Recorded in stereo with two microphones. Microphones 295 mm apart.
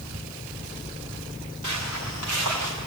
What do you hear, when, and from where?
1.6 s footsteps: 75° right (ahead or behind), 6 m; by 2.7 s 80° right, 5.5 m